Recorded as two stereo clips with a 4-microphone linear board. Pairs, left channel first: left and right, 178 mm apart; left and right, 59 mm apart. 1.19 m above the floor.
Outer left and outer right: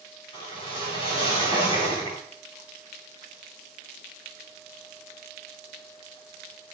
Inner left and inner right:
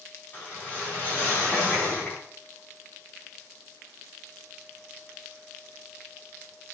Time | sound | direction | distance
0.3 | a whoosh | 30° left (ahead or behind) | 4 m